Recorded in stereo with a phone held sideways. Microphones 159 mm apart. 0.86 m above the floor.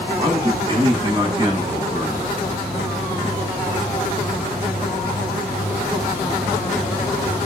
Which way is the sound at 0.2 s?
25° right (ahead or behind).